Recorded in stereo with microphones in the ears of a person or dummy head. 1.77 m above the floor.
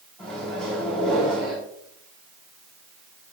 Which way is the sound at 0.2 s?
5° right (ahead or behind).